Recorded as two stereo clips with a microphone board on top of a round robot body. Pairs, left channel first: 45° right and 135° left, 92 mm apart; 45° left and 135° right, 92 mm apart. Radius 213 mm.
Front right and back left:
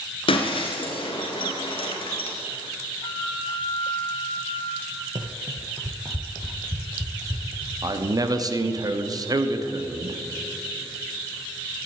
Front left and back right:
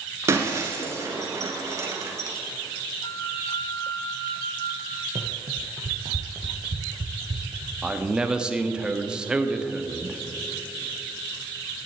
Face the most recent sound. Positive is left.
turn(degrees=150)